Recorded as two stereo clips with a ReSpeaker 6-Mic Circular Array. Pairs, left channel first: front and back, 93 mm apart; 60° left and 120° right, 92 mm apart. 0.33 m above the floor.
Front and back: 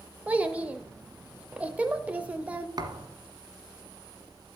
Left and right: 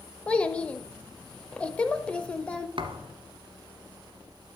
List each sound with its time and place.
0.3 s a child speaking: 125° left, 0.6 m
2.8 s a thud: 140° right, 1.2 m